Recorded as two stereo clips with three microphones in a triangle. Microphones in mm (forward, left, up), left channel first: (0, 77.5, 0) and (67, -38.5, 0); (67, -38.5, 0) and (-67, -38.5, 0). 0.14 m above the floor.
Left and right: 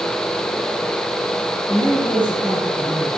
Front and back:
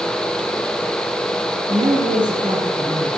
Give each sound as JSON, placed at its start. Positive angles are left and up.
{"t": 1.7, "sound": "a woman speaking", "azimuth_deg": -135, "distance_m": 2.5}